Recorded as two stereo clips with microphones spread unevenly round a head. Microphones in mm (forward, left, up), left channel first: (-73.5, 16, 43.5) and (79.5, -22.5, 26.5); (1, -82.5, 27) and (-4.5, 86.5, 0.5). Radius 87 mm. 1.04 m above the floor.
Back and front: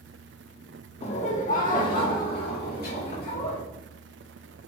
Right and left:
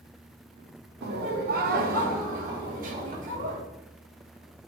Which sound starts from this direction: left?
Laughter, at 1.0 s.